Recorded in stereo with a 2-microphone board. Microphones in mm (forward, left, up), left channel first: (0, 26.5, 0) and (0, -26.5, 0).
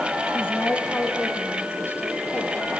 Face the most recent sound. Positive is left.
turn(degrees=55)  # may be behind; listen again after turning